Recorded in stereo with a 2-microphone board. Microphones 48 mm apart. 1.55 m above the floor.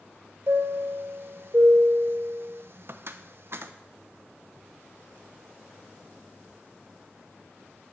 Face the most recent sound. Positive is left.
turn(degrees=-55)  # may be behind; listen again after turning